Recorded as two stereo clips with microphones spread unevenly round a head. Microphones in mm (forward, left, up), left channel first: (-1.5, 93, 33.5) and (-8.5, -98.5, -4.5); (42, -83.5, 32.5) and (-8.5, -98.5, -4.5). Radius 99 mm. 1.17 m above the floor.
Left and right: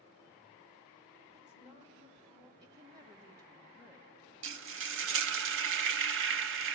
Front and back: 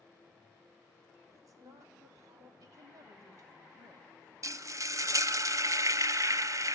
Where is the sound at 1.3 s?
150° right, 4.5 m.